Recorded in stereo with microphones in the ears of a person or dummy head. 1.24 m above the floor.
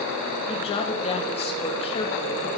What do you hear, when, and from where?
0.5 s a woman speaking: 30° left (ahead or behind), 2.5 m